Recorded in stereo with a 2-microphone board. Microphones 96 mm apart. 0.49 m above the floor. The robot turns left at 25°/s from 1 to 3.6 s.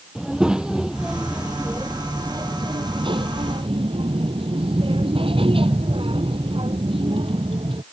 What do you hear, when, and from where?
0.1 s a child speaking: 10° right; by 7.8 s 75° right